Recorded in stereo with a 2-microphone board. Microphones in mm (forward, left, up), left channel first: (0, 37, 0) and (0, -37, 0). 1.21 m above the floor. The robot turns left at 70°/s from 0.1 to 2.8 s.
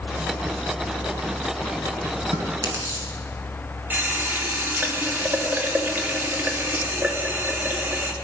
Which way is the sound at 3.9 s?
25° right (ahead or behind).